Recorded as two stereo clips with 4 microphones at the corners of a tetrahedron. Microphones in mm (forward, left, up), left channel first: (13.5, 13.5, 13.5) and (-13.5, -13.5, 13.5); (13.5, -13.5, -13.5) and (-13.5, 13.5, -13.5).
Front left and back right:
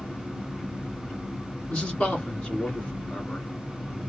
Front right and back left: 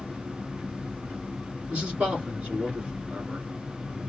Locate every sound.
0.0 s an engine running: 90° left, 1.7 m
1.7 s a man speaking: 95° left, 2.0 m